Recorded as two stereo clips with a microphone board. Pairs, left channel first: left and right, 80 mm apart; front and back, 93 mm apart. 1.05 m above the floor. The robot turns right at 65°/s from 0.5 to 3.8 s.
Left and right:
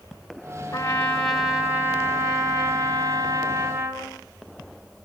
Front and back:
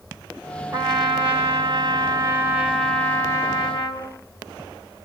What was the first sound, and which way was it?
A trumpet, 135° left.